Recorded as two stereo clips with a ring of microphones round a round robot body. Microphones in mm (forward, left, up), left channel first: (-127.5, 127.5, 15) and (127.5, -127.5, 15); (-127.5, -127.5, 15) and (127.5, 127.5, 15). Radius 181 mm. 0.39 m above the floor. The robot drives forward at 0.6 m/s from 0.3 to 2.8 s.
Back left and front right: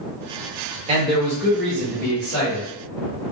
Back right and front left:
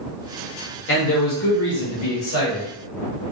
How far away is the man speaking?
About 1.0 m.